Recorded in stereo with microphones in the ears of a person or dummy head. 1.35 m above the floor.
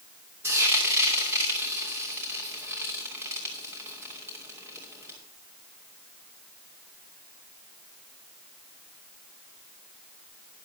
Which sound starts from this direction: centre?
Frying, at 0.4 s.